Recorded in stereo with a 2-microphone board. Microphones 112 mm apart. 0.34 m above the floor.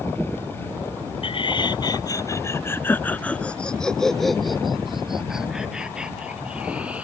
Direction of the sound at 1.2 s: 55° left (ahead or behind).